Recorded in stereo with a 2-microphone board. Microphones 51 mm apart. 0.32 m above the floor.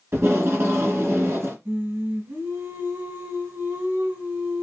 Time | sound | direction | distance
0.1 | tape being pulled | 60° right (ahead or behind) | 1.8 m
1.6 | singing | 45° right (ahead or behind) | 2.5 m